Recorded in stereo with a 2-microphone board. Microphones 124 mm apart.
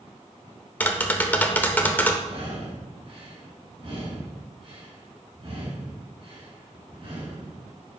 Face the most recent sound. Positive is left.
turn(degrees=-40)  # may be behind; listen again after turning